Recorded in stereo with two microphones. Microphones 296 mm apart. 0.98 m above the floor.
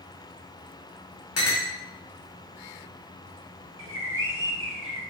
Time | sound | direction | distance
1.4 | a clink | 55° left (ahead or behind) | 0.8 m
3.8 | a bird | 45° right (ahead or behind) | 0.7 m